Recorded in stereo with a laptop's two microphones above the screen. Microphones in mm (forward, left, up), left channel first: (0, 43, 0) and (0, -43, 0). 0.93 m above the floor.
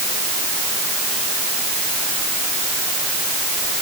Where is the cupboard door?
No cupboard door in this recording.